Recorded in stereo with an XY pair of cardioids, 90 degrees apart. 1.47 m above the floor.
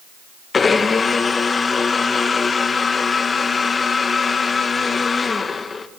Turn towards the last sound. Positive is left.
turn(degrees=40)